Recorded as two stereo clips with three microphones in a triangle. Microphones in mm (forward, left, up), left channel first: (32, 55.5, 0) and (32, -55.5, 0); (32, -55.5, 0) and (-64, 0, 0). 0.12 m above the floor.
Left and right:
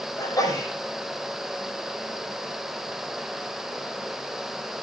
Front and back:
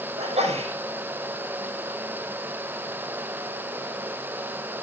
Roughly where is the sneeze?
Behind left.